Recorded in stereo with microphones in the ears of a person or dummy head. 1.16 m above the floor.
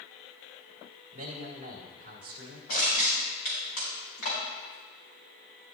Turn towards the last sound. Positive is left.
turn(degrees=65)  # may be behind; listen again after turning